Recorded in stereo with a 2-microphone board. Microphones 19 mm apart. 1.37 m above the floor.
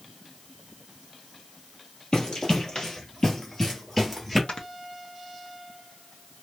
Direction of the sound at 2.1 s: 45° left (ahead or behind).